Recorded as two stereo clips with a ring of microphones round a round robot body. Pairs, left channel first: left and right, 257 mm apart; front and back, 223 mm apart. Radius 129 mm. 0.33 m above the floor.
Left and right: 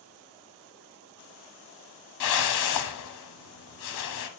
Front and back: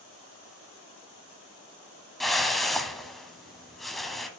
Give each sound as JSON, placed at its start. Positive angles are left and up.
{"t": 2.2, "sound": "a whoosh", "azimuth_deg": 90, "distance_m": 1.1}